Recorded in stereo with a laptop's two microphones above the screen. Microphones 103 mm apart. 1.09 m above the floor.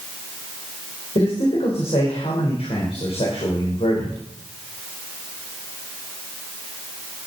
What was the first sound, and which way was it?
A man speaking, 65° left (ahead or behind).